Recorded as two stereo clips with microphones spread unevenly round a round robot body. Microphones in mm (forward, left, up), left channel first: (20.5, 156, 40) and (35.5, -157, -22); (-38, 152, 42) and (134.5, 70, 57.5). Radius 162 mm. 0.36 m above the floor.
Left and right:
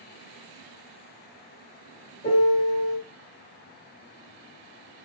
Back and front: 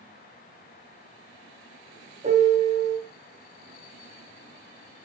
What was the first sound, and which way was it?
A piano, 25° left.